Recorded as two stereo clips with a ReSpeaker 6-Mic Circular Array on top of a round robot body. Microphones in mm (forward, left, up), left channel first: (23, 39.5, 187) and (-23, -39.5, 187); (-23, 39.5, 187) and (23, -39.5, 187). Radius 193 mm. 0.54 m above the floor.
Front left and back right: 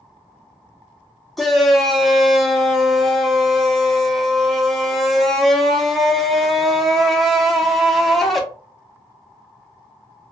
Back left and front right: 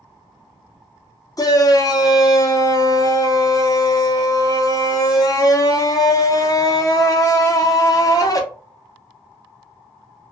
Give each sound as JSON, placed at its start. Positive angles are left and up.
{"t": 1.4, "sound": "a shout", "azimuth_deg": 150, "distance_m": 1.0}